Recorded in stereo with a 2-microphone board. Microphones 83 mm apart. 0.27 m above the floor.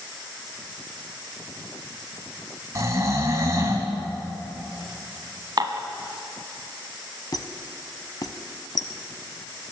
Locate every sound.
2.8 s snoring: 40° right (ahead or behind), 2.0 m
5.6 s dishes clattering: 50° right (ahead or behind), 1.2 m
7.3 s a squeak: 55° left (ahead or behind), 0.8 m